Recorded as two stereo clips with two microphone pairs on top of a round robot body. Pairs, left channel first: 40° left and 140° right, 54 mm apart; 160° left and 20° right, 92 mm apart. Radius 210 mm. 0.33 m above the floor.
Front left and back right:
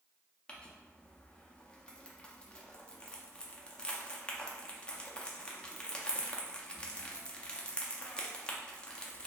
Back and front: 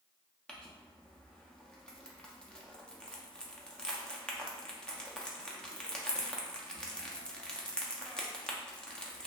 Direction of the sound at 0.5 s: 110° left.